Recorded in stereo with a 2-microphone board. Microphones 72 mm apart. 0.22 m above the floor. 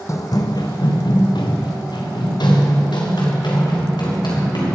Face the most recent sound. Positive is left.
turn(degrees=85)